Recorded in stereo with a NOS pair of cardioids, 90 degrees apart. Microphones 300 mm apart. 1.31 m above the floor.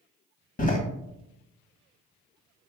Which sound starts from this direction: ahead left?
A door slam, at 0.6 s.